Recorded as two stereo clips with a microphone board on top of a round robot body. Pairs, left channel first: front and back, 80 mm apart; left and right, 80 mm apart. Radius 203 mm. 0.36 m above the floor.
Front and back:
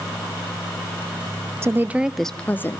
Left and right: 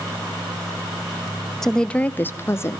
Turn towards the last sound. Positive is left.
turn(degrees=45)